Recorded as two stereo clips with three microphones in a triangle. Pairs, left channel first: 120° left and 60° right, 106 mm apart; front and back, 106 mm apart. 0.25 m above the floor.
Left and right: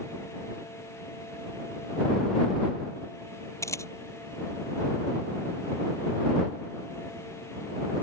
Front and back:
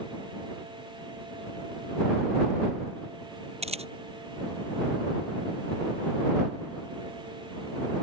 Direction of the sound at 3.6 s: Straight behind.